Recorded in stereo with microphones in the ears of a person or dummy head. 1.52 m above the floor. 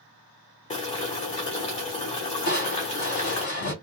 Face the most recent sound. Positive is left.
turn(degrees=45)  # may be behind; listen again after turning